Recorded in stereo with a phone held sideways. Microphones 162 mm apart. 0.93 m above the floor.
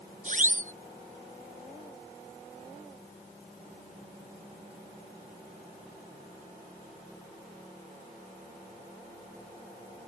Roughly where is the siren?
Right.